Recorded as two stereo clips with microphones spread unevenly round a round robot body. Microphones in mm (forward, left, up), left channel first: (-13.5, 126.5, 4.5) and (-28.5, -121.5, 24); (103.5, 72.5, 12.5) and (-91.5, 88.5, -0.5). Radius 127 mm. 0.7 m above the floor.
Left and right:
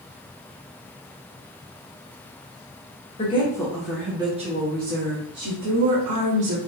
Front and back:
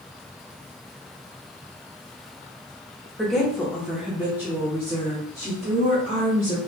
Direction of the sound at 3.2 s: 90° left.